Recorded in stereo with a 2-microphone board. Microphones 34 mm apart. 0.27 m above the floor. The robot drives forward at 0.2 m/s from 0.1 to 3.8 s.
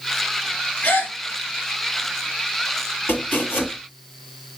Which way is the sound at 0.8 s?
60° left (ahead or behind).